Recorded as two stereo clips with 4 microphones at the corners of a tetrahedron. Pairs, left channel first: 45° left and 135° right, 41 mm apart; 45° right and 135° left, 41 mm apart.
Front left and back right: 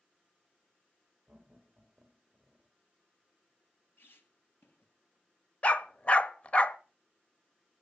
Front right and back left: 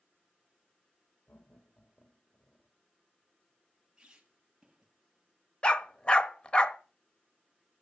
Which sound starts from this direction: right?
Laughter, at 1.3 s.